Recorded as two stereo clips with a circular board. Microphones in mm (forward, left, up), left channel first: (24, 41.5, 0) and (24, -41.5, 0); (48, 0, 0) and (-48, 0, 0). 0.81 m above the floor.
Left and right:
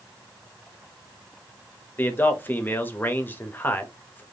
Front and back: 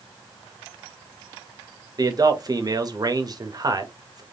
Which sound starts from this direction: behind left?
A man speaking, at 2.0 s.